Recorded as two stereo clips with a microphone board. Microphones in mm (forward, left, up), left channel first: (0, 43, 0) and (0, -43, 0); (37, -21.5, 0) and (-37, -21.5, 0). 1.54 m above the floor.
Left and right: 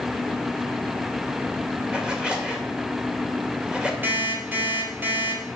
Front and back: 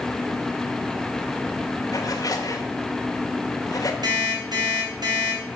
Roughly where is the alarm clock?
Behind.